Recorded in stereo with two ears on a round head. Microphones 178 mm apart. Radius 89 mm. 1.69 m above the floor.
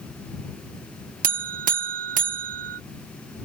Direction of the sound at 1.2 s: 45° right (ahead or behind).